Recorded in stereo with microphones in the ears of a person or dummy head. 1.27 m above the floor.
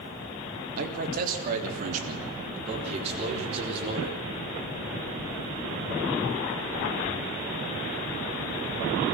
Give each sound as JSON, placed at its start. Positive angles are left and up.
{"t": 0.8, "sound": "a man speaking", "side_deg": -55, "distance_m": 3.0}